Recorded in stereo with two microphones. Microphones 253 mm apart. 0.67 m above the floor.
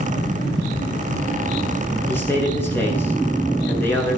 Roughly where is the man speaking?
Centre.